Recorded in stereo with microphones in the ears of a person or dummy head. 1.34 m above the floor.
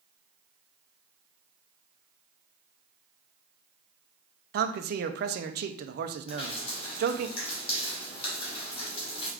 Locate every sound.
4.5 s a man speaking: 60° right (ahead or behind), 0.5 m
6.3 s dripping: 40° left (ahead or behind), 1.8 m